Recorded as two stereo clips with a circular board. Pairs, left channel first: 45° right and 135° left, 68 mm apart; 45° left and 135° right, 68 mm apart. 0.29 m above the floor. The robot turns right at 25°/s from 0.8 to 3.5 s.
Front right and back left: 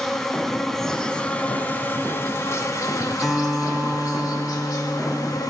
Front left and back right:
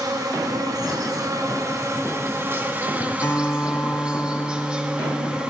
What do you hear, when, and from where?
0.0 s an insect: 130° right, 1.4 m; by 5.5 s 60° right, 1.4 m
3.2 s a guitar: 50° left, 1.6 m; by 5.4 s 55° left, 1.6 m